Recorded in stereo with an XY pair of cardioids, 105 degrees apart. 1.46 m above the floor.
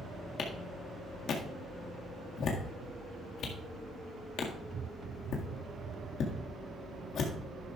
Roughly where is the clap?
Ahead left.